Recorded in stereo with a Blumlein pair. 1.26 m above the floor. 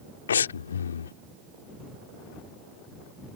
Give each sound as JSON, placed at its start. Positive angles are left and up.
{"t": 0.3, "sound": "breathing", "azimuth_deg": 65}